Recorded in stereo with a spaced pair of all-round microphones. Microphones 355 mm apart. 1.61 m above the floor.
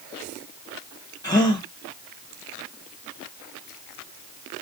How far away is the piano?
I don't hear a piano.